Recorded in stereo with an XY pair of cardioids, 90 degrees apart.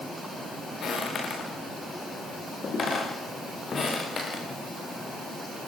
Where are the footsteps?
60° left, 9.5 m; by 5.7 s 45° left, 8.5 m.